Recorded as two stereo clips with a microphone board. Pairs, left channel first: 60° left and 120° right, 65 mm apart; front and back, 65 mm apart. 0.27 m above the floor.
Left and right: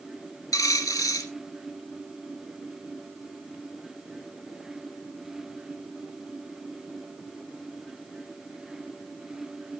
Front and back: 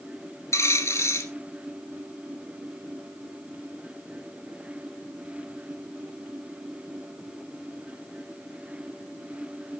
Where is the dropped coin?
40° left, 2.0 m.